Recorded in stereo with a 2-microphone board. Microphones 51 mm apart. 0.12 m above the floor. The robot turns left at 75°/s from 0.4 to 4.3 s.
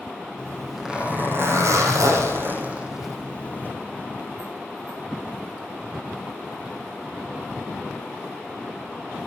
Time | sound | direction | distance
0.4 | a zipper | 20° left | 4.5 m